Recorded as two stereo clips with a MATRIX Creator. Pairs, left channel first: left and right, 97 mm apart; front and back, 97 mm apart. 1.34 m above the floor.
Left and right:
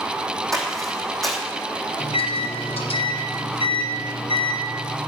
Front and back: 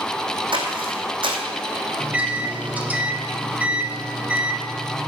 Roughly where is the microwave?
Left.